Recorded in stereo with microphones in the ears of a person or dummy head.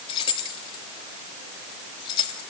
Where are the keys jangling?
35° left (ahead or behind), 1.6 m.